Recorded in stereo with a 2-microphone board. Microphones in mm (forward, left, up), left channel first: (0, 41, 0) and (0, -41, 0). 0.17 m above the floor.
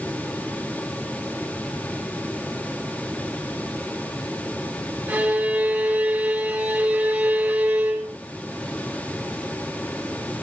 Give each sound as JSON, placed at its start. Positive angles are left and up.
{"t": 5.1, "sound": "a violin", "side_deg": -15, "distance_m": 4.5}